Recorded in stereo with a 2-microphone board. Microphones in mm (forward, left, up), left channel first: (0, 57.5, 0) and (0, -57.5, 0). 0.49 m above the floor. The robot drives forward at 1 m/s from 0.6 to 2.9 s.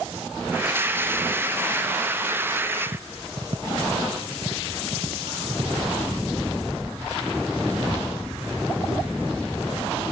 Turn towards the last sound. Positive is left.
turn(degrees=-45)  # may be behind; listen again after turning